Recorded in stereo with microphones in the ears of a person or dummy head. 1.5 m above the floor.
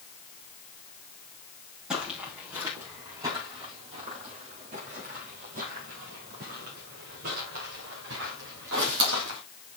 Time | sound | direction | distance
1.9 | footsteps | centre (ahead or behind) | 3 m